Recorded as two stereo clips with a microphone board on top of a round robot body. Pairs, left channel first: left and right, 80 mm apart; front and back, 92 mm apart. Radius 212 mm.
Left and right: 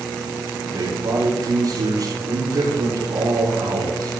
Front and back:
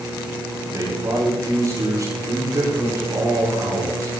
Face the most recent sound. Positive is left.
turn(degrees=-130)